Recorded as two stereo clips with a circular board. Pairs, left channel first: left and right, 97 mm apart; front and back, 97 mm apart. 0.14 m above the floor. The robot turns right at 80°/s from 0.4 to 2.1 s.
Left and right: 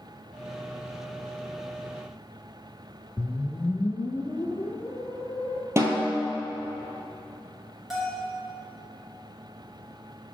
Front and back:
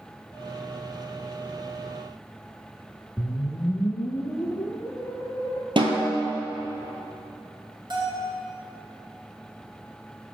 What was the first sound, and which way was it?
A whoosh, 45° left.